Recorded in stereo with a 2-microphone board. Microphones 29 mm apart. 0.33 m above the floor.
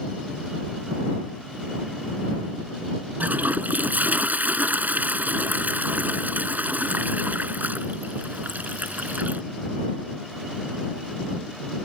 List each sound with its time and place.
3.2 s a toilet flushing: 75° right (ahead or behind)